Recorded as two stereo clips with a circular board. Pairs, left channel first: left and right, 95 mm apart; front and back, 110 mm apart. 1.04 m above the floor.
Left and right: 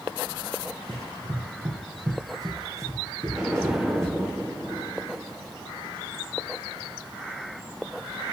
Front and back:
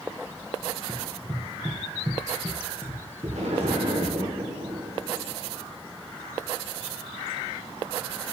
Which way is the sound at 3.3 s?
170° right.